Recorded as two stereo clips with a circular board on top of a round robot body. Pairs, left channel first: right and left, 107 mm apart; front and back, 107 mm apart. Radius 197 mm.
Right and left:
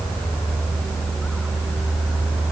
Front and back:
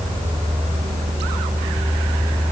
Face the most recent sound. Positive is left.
No sound to turn to.